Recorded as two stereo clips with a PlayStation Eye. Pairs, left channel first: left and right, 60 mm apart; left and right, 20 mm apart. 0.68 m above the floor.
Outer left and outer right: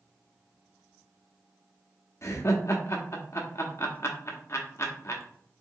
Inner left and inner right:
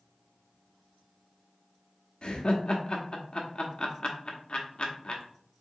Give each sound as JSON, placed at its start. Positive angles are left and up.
{"t": 2.2, "sound": "laughter", "side_deg": 50, "distance_m": 0.9}